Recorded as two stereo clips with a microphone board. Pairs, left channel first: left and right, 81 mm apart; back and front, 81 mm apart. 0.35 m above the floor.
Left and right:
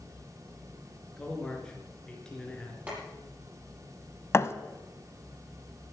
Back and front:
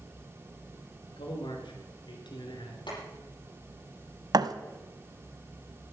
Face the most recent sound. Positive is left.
turn(degrees=35)